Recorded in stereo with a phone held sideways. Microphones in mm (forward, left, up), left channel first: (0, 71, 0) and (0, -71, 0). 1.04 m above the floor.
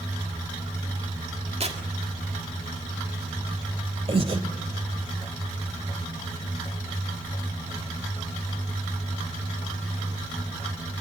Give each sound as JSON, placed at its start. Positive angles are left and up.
{"t": 1.6, "sound": "tearing paper", "side_deg": -50, "distance_m": 1.9}
{"t": 4.1, "sound": "breathing", "side_deg": -40, "distance_m": 1.7}